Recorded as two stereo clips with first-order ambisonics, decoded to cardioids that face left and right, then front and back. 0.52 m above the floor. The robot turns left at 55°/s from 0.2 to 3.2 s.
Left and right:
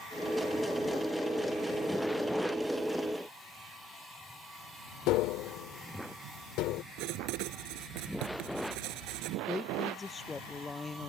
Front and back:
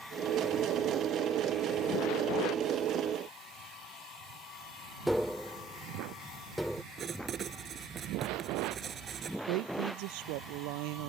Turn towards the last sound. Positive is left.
turn(degrees=170)